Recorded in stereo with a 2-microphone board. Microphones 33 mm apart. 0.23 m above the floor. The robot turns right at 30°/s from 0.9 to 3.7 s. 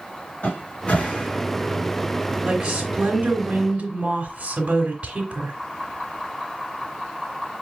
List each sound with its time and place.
0.4 s a cupboard door: 45° left (ahead or behind), 1.3 m; by 2.4 s 10° left (ahead or behind), 1.3 m
2.5 s a woman speaking: 165° right, 1.4 m; by 5.5 s 125° right, 1.4 m